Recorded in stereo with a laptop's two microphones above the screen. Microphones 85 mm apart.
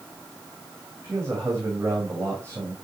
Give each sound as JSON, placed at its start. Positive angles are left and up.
{"t": 1.0, "sound": "a man speaking", "side_deg": -35, "distance_m": 5.5}